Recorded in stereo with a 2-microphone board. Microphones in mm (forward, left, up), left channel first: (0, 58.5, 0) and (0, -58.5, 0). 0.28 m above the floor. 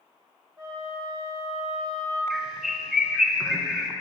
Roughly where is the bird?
Centre.